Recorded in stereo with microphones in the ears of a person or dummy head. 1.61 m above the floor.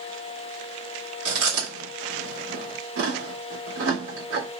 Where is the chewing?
75° right (ahead or behind), 2.5 m.